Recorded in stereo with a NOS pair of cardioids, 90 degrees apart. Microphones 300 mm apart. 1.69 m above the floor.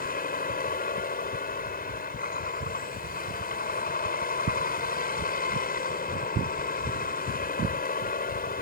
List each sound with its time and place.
0.0 s a vehicle: 30° left